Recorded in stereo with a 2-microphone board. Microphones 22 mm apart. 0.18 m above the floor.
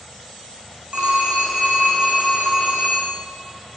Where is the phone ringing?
45° right (ahead or behind), 8 m.